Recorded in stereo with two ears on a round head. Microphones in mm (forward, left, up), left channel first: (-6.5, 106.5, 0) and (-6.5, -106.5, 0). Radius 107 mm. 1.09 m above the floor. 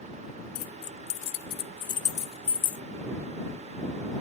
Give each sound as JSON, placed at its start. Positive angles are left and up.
{"t": 0.6, "sound": "keys jangling", "side_deg": 70}